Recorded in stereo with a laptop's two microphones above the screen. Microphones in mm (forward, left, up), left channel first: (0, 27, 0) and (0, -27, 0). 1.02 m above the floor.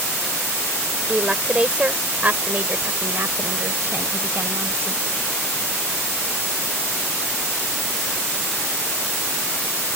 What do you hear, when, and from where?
1.1 s a woman speaking: 20° right (ahead or behind); by 5.0 s 55° right (ahead or behind)